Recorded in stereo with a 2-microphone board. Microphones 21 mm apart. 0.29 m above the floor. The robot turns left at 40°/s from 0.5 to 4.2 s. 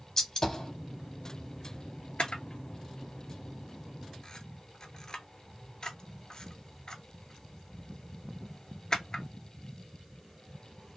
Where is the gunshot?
25° left (ahead or behind), 0.6 m; by 0.7 s 35° left (ahead or behind), 0.6 m.